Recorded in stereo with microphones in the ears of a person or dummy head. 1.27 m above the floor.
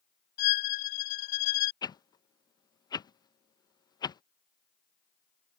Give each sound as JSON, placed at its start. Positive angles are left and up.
{"t": 0.4, "sound": "a violin", "side_deg": 60}
{"t": 1.8, "sound": "a whoosh", "side_deg": 30}